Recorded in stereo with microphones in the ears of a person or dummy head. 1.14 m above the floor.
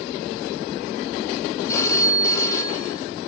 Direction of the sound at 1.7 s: 20° left (ahead or behind).